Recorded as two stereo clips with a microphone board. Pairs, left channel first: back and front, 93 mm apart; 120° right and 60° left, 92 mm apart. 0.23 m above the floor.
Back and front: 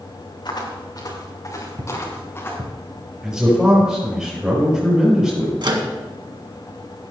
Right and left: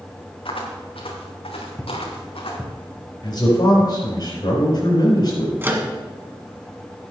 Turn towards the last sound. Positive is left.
turn(degrees=0)